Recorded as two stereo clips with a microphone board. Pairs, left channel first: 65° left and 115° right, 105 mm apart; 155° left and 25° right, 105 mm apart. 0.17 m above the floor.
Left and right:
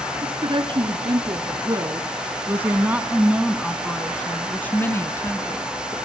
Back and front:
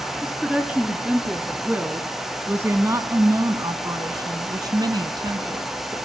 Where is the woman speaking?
110° right, 2 m; by 6.0 s 15° left, 2 m.